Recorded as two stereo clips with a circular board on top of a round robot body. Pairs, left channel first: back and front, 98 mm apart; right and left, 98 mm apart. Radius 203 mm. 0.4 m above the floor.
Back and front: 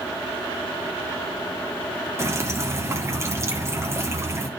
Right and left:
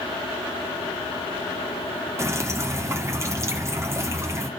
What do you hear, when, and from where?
2.2 s dripping: 45° left, 1.7 m